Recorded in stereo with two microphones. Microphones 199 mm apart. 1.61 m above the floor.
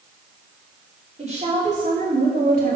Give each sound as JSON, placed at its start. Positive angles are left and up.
{"t": 1.2, "sound": "a woman speaking", "side_deg": -35, "distance_m": 4.5}